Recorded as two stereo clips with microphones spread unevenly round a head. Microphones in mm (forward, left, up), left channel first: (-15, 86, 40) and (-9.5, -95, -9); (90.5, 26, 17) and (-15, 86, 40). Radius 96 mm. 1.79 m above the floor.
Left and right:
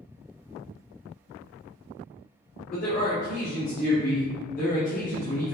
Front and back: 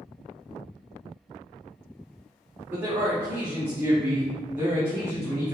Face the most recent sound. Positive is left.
turn(degrees=85)